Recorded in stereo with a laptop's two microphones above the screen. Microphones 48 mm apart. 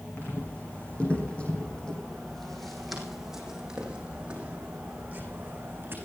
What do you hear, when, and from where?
0.2 s footsteps: 35° left (ahead or behind), 4.5 m; by 6.0 s 40° right (ahead or behind), 4.5 m